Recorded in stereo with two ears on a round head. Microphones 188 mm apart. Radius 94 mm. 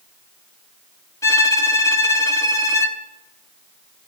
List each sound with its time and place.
1.2 s a violin: 15° left (ahead or behind), 1.0 m